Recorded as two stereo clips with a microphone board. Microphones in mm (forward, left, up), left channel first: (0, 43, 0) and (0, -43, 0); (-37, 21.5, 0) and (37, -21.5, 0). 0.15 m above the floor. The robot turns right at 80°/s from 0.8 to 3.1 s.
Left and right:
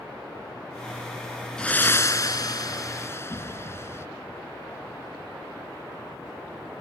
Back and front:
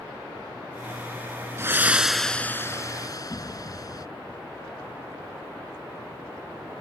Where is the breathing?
15° left; by 4.1 s 135° left.